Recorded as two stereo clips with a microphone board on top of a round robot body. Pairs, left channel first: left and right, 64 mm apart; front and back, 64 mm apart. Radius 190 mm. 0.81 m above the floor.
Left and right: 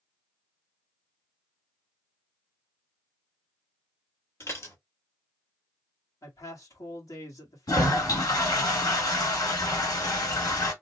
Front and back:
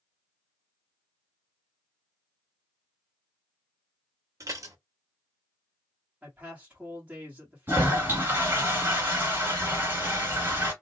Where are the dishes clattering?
140° left, 1.4 m.